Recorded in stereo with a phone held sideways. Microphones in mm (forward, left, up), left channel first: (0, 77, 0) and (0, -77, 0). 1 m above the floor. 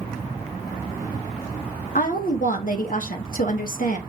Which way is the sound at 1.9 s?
65° left (ahead or behind).